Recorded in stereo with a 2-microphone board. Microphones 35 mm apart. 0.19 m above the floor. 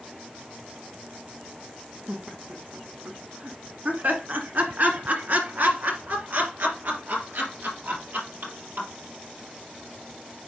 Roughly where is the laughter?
Right.